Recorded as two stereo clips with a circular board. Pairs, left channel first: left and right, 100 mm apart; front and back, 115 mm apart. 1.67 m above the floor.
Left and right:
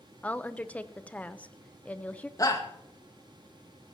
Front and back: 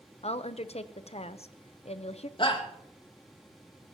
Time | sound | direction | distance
0.2 | a woman speaking | 15° left | 0.8 m
2.4 | a shout | 40° left | 2 m